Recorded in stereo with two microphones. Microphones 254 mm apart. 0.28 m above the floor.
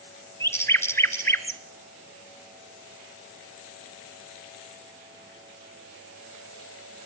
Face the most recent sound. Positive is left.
turn(degrees=10)  # may be behind; listen again after turning